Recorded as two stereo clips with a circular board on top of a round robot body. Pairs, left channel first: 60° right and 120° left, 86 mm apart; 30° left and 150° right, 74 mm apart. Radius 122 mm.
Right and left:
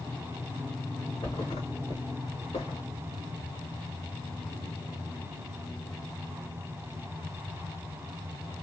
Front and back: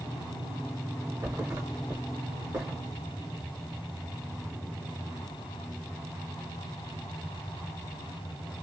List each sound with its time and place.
1.2 s a thud: 100° right, 0.6 m